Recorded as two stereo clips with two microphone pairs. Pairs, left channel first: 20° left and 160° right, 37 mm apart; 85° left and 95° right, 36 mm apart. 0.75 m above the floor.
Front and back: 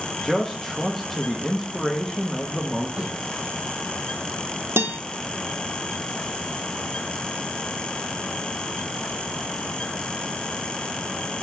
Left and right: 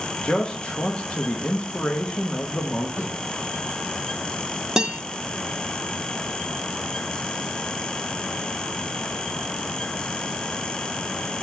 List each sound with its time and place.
0.2 s a man speaking: 100° left, 0.9 m
3.0 s a snare drum: 140° left, 4 m
4.8 s a guitar: 165° right, 0.7 m